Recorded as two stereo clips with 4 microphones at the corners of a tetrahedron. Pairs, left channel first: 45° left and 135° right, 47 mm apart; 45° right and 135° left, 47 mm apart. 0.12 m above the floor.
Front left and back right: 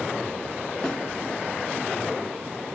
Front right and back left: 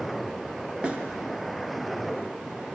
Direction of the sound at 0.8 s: 100° left.